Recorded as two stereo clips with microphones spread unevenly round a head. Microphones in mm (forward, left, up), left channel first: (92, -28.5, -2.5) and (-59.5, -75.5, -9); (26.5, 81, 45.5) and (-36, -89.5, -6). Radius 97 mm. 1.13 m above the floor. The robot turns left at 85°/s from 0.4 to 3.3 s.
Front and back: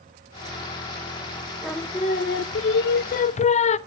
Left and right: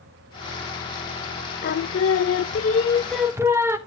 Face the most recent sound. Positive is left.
turn(degrees=-30)